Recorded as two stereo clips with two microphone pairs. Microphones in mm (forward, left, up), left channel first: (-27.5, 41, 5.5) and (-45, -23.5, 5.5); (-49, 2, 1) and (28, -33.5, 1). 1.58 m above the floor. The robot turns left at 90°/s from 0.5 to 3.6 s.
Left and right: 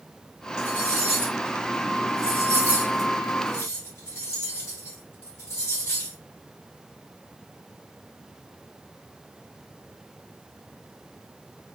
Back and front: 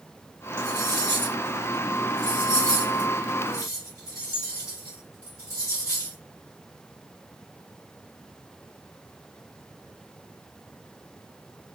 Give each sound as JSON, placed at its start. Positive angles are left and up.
{"t": 0.6, "sound": "cutlery clinking", "azimuth_deg": 25, "distance_m": 1.4}